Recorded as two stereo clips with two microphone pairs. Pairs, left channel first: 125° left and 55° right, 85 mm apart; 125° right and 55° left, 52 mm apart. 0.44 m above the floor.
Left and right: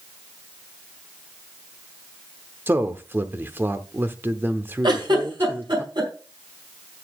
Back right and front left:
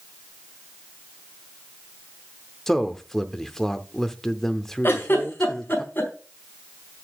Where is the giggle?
80° right, 4.5 m.